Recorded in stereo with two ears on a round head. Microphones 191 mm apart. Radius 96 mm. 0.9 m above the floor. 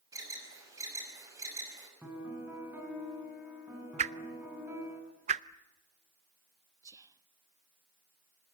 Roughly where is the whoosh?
Right.